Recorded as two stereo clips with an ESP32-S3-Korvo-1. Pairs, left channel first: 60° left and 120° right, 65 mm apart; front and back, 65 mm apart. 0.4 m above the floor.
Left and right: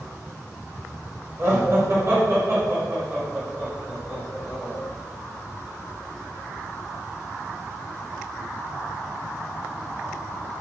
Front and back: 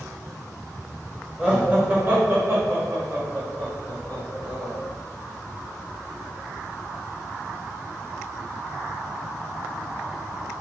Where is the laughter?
120° right, 1.3 m; by 4.7 s straight behind, 2.5 m.